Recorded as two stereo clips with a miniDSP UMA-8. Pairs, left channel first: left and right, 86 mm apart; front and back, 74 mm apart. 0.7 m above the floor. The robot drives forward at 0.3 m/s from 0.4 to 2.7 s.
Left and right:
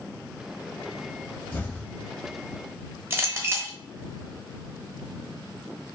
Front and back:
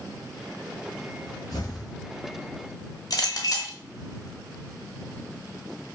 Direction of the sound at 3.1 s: 30° right.